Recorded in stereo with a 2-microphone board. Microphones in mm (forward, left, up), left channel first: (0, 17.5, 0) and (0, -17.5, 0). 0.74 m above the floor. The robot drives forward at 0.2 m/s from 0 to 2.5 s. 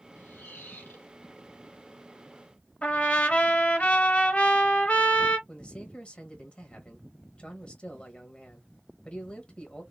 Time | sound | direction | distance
0.1 | a squeak | 85° left | 1.7 m
2.8 | a trumpet | 40° left (ahead or behind) | 0.8 m
5.5 | a man speaking | 30° left (ahead or behind) | 1.3 m